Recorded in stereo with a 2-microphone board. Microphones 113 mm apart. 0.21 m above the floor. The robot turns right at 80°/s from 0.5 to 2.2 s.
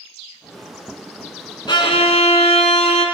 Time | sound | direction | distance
1.7 | a violin | 45° left | 0.9 m